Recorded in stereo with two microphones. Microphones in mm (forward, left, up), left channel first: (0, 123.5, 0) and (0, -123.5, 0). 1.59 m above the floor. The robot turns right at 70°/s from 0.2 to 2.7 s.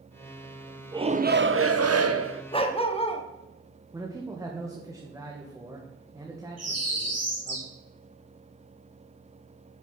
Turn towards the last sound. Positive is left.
turn(degrees=-75)  # may be behind; listen again after turning